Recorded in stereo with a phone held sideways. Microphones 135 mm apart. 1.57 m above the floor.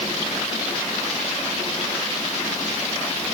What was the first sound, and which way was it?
Only background noise.